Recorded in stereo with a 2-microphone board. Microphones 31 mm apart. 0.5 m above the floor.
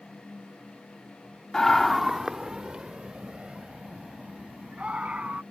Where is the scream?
20° left (ahead or behind); by 5.4 s 40° right (ahead or behind).